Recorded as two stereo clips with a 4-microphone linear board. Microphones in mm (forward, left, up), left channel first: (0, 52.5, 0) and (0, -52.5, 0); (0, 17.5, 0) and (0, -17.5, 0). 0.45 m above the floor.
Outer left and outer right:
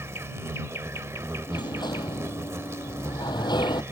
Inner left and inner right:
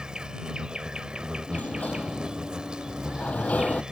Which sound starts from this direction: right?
An insect, at 0.0 s.